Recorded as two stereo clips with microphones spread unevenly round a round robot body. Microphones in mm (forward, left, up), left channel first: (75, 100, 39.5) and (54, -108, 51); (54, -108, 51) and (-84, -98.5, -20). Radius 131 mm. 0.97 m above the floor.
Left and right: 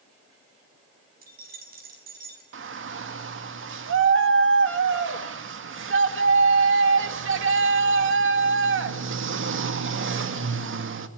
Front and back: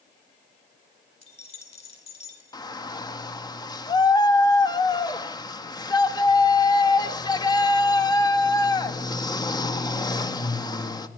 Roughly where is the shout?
Right.